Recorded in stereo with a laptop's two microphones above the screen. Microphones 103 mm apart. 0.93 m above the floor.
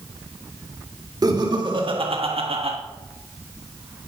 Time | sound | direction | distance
1.2 | laughter | 40° right (ahead or behind) | 1.8 m